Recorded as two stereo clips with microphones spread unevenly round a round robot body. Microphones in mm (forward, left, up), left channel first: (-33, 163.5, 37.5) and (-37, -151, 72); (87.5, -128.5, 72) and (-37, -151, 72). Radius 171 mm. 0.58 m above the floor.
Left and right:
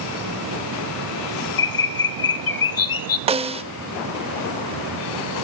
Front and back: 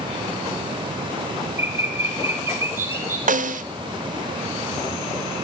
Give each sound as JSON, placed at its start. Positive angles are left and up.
{"t": 1.6, "sound": "a bird", "azimuth_deg": 110, "distance_m": 0.9}
{"t": 3.3, "sound": "a snare drum", "azimuth_deg": -165, "distance_m": 1.2}